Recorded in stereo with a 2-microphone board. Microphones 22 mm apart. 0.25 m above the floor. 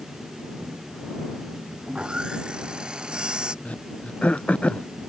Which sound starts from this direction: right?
Sawing, at 1.9 s.